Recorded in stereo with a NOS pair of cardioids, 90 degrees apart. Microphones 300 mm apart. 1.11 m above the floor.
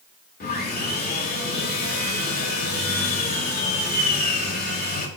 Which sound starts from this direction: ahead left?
Sawing, at 0.4 s.